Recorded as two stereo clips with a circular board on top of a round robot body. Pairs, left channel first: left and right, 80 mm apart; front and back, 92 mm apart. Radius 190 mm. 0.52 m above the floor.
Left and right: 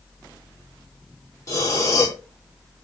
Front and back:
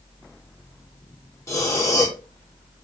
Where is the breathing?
50° left, 1.2 m.